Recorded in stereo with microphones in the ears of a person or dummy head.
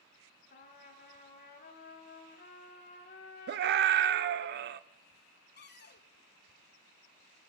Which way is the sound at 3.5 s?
50° right (ahead or behind).